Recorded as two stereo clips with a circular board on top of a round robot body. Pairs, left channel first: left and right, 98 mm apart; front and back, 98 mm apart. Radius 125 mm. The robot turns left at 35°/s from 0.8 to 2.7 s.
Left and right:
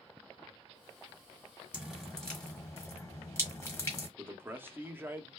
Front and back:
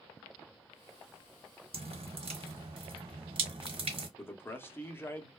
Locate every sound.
1.7 s dripping: 170° right, 1.4 m; by 4.1 s 155° left, 1.4 m
4.2 s a man speaking: 45° right, 0.8 m